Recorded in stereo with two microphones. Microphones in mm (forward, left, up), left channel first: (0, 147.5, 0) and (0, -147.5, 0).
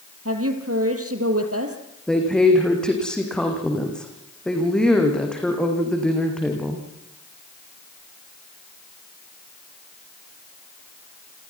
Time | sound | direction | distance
0.2 | a woman speaking | 50° right (ahead or behind) | 3 m
2.1 | a woman speaking | 5° left (ahead or behind) | 7 m